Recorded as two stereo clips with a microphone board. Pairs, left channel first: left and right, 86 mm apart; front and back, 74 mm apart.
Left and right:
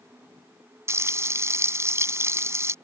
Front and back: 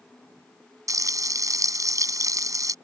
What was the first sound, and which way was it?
Frying, 145° right.